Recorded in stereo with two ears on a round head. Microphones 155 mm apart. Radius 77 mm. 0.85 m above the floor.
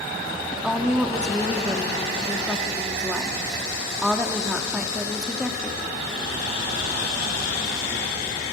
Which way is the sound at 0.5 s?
5° right (ahead or behind).